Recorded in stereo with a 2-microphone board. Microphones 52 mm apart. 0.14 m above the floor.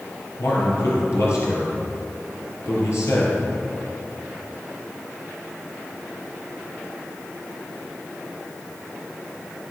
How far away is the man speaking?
About 3.5 m.